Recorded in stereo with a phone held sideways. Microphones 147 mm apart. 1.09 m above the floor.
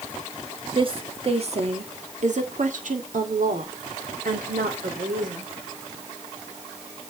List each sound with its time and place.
0.8 s a woman speaking: 40° right (ahead or behind), 1.9 m; by 5.5 s 90° right, 3.5 m